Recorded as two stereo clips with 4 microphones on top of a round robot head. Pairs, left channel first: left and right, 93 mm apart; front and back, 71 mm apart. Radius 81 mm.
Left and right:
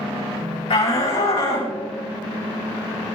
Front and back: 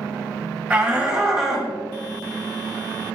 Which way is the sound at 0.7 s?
105° left.